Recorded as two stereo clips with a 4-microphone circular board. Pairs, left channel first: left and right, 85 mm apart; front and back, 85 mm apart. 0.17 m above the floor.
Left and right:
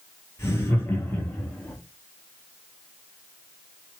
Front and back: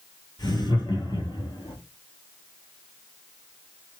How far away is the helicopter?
No helicopter in this recording.